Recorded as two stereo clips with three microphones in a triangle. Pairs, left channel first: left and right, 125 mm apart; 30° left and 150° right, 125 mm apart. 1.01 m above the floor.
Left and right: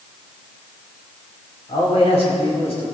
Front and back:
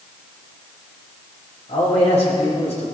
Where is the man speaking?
55° left, 6.5 m; by 2.9 s 60° left, 7.5 m.